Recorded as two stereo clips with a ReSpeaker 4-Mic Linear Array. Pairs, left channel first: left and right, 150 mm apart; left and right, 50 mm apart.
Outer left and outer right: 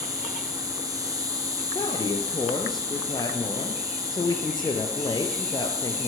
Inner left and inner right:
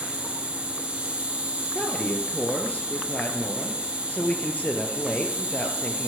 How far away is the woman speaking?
About 2.5 m.